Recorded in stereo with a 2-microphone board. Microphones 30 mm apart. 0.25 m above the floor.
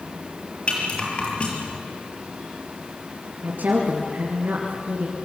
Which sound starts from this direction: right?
A woman speaking, at 3.4 s.